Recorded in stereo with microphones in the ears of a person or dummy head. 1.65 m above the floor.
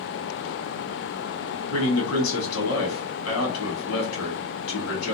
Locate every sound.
1.7 s a man speaking: 90° left, 1.3 m